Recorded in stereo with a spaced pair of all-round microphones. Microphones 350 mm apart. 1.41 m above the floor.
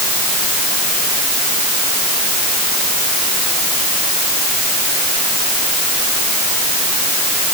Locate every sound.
Only background noise.